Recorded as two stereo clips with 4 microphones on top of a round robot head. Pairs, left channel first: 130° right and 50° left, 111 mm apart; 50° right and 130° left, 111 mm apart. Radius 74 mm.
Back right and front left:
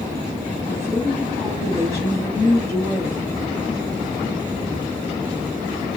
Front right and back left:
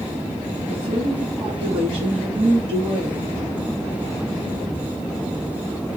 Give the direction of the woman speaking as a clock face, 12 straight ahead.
6 o'clock.